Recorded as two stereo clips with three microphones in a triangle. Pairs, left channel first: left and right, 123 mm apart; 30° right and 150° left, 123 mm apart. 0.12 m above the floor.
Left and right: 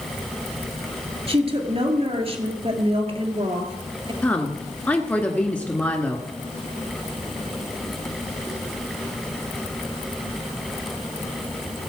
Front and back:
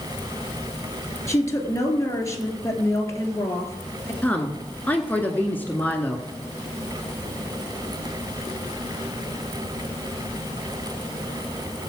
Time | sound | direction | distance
1.3 | a woman speaking | 90° right | 2 m
4.2 | a woman speaking | 30° left | 1.1 m